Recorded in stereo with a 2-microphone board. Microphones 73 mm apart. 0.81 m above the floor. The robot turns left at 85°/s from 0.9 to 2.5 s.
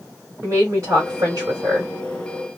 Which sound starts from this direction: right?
A woman speaking, at 0.4 s.